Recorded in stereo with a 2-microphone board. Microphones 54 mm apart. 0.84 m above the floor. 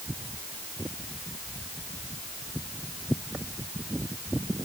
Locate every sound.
Only background noise.